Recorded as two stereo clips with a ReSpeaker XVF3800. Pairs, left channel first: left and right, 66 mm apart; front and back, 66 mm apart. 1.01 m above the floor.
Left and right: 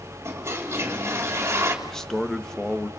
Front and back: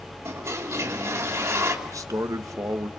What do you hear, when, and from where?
0.2 s a toilet flushing: 140° right, 3 m
1.9 s a man speaking: 170° left, 1.4 m